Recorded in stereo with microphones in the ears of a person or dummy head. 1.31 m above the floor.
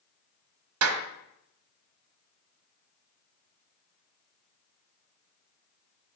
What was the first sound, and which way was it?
A clap, 75° right (ahead or behind).